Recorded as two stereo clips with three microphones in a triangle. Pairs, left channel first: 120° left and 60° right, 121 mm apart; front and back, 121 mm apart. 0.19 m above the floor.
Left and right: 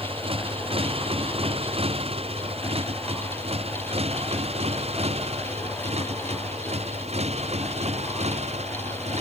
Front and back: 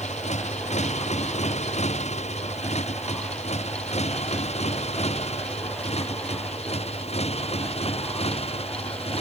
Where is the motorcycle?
20° right; by 9.2 s 35° right.